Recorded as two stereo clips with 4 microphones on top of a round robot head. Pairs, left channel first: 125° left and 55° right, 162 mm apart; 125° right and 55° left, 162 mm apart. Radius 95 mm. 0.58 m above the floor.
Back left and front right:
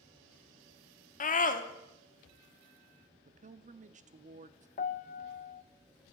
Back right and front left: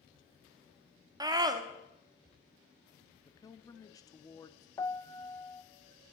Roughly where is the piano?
Behind.